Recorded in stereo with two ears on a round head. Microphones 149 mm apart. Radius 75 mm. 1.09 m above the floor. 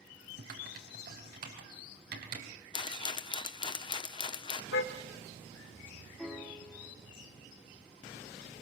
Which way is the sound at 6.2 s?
Centre (ahead or behind).